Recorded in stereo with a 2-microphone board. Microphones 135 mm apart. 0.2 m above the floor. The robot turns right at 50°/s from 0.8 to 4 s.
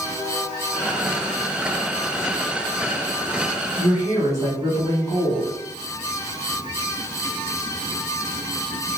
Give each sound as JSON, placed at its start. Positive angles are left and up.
{"t": 3.8, "sound": "a woman speaking", "side_deg": -15, "distance_m": 1.6}